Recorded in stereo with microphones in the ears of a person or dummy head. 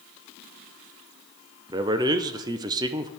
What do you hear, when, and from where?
1.7 s a man speaking: 25° right (ahead or behind), 0.5 m